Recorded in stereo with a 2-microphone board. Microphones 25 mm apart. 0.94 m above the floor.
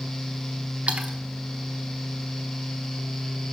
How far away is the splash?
About 0.9 m.